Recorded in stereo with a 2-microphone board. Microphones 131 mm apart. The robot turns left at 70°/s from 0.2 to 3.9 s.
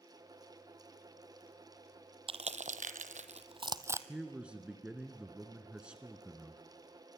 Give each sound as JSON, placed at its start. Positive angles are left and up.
{"t": 2.3, "sound": "crushing", "side_deg": -45, "distance_m": 0.9}
{"t": 4.1, "sound": "a man speaking", "side_deg": -10, "distance_m": 1.2}